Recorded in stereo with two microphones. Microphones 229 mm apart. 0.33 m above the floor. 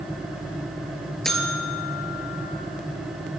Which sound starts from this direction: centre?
A buzzer, at 1.2 s.